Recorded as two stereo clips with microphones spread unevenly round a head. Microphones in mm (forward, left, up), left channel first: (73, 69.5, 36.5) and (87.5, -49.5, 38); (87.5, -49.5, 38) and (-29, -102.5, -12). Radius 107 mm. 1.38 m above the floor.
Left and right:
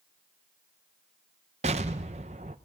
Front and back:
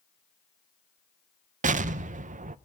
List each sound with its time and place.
1.6 s an explosion: 125° right, 0.6 m